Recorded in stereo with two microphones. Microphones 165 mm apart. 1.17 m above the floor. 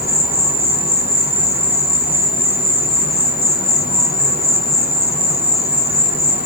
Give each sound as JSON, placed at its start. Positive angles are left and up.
{"t": 0.0, "sound": "an insect", "side_deg": 70, "distance_m": 0.8}